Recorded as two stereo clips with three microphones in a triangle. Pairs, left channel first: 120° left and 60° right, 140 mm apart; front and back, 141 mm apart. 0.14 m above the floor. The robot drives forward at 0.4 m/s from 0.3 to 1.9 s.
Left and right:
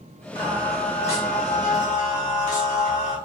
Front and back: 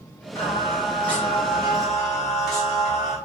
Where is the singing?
70° left, 1.8 m; by 3.2 s 90° left, 1.7 m.